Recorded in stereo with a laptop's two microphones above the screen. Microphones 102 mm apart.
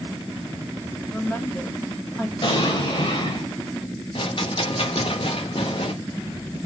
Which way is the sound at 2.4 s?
60° left (ahead or behind).